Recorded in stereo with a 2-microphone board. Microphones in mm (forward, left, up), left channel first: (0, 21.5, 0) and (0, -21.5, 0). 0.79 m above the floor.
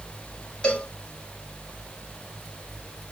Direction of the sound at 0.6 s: 25° left (ahead or behind).